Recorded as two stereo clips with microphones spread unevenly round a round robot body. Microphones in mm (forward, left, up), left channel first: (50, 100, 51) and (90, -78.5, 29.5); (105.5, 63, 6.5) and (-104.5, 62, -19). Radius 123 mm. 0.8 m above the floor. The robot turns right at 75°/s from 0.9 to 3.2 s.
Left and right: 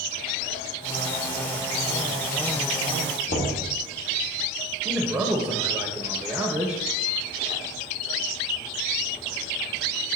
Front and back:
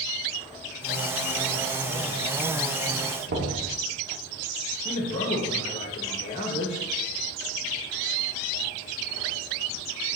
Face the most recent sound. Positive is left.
turn(degrees=-15)